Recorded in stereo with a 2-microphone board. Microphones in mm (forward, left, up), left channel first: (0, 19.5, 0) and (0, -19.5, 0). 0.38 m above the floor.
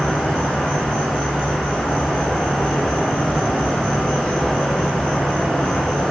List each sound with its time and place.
0.0 s an insect: 20° left (ahead or behind), 1.5 m